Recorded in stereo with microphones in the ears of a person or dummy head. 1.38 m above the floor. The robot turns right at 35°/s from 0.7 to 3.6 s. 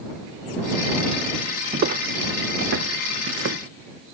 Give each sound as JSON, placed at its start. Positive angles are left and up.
{"t": 1.7, "sound": "footsteps", "side_deg": -45}